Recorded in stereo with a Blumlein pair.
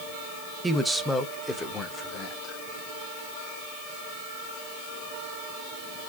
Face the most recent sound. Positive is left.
turn(degrees=30)